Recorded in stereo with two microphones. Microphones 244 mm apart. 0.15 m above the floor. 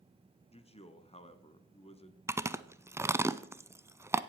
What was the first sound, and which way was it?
A man speaking, 25° left (ahead or behind).